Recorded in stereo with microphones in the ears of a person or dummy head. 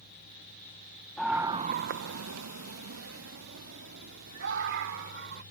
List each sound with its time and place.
1.2 s a scream: centre (ahead or behind); by 5.4 s 65° right (ahead or behind)